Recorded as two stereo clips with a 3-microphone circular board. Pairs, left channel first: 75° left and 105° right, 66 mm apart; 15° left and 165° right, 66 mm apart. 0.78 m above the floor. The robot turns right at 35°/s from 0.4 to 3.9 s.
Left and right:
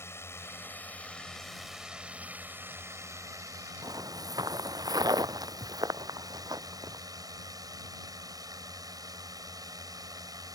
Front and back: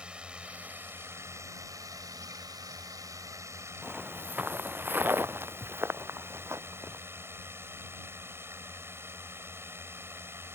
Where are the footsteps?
90° right; by 7.0 s 120° right.